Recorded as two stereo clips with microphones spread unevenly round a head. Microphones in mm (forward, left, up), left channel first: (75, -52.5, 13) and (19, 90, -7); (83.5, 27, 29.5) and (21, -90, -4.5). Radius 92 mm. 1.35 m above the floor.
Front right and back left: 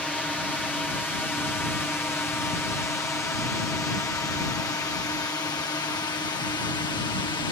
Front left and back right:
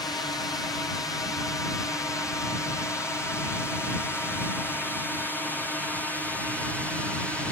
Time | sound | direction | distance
0.0 | a drone | 15° left | ?